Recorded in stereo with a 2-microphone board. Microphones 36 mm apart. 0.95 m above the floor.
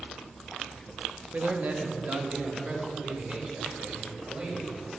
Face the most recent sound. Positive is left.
turn(degrees=-35)  # may be behind; listen again after turning